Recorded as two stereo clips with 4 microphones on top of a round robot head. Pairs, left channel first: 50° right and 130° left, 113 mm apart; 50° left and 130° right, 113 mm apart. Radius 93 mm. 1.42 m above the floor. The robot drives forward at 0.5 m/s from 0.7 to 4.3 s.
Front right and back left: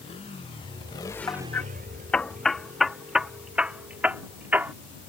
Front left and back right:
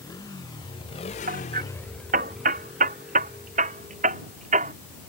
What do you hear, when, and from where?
0.0 s a motorcycle: 10° right; by 5.1 s 155° left
1.3 s hammering: 115° right; by 4.7 s 155° right